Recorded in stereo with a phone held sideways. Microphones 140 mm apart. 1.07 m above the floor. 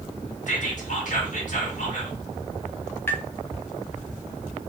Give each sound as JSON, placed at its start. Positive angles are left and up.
{"t": 0.5, "sound": "whispering", "side_deg": 65, "distance_m": 1.8}
{"t": 3.1, "sound": "tapping", "side_deg": 15, "distance_m": 0.7}